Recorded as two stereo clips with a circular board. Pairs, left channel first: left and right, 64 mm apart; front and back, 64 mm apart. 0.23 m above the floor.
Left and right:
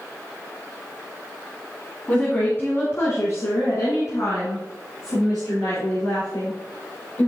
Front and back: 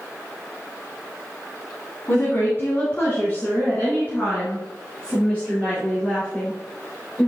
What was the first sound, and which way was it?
A woman speaking, 30° left.